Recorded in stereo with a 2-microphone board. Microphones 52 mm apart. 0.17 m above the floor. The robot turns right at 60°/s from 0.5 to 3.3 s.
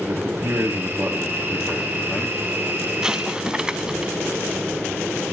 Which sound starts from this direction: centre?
An explosion, at 3.0 s.